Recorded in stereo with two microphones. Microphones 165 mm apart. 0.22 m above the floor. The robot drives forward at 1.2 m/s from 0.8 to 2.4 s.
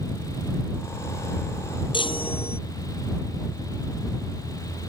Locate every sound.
1.9 s a chime: 30° left (ahead or behind); by 2.6 s 35° left (ahead or behind)